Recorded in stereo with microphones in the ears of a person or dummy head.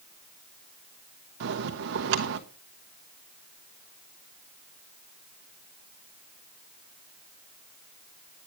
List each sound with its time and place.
1.4 s a bell: 60° right (ahead or behind), 1.1 m